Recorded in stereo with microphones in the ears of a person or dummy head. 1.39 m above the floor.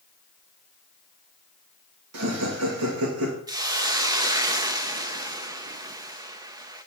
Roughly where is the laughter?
Right.